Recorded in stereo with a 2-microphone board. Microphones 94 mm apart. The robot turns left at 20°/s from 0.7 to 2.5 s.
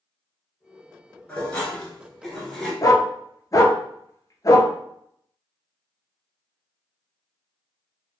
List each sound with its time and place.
1.3 s dishes clattering: 15° left (ahead or behind), 0.9 m; by 2.7 s centre (ahead or behind), 0.9 m
2.8 s a dog barking: 40° left (ahead or behind), 0.6 m